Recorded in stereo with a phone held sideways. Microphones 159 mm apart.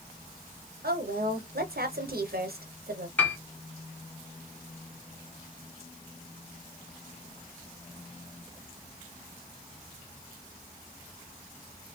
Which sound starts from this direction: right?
A woman speaking, at 0.8 s.